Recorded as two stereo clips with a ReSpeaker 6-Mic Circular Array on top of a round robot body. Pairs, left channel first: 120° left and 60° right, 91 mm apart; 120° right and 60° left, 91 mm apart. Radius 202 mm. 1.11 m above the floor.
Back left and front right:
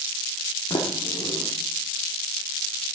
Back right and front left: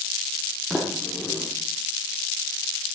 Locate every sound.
0.7 s a sliding door: 150° left, 1.0 m